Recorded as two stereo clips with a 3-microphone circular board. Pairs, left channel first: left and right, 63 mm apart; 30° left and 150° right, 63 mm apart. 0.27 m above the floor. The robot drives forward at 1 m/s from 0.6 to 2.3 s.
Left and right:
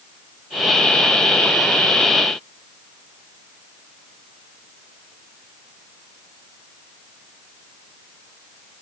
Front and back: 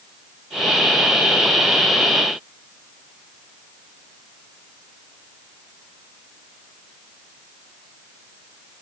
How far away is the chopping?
No chopping in this recording.